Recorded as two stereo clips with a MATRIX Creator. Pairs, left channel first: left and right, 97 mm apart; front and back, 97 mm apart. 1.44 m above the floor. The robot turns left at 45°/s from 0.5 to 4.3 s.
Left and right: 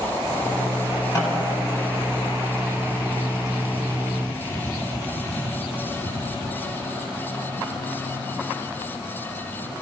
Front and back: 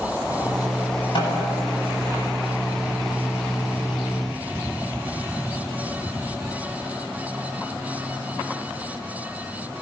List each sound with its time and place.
1.1 s a snare drum: 40° left, 8.5 m; by 1.5 s 25° left, 8.5 m